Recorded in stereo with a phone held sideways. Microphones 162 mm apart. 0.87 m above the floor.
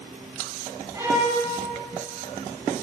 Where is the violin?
25° right (ahead or behind), 2.5 m.